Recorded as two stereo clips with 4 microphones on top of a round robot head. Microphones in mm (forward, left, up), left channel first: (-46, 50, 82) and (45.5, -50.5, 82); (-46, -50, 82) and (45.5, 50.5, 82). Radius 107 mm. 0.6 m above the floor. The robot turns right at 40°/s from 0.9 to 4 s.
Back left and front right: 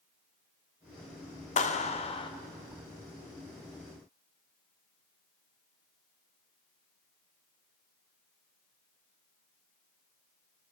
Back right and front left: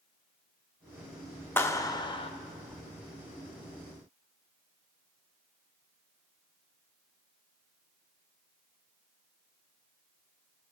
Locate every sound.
1.6 s a clap: 155° left, 1.1 m; by 2.3 s 175° right, 1.1 m